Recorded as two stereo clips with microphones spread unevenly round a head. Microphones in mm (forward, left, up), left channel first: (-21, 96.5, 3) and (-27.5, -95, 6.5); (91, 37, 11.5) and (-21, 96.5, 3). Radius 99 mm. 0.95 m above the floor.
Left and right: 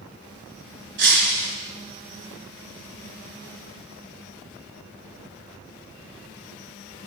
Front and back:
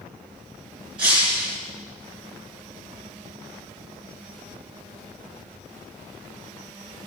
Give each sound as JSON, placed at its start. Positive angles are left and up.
{"t": 1.0, "sound": "breaking glass", "azimuth_deg": -120, "distance_m": 3.5}